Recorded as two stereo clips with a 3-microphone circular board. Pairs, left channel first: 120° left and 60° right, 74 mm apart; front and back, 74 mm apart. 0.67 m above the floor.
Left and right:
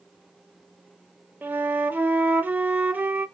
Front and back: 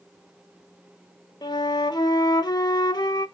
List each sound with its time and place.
1.4 s a flute: 5° left, 0.5 m